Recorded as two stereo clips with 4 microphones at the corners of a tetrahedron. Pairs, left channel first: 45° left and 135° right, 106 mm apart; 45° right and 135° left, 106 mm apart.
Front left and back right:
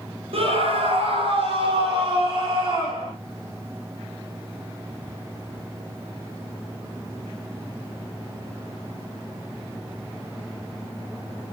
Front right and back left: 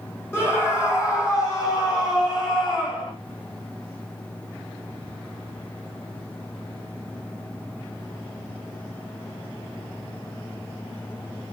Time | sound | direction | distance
0.3 | a scream | 110° right | 6 m